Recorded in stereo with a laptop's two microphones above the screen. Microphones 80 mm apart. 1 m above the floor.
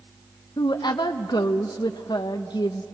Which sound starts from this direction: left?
A woman speaking, at 0.6 s.